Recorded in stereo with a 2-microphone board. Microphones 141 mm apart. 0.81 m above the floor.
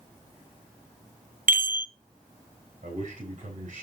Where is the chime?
80° right, 0.6 m.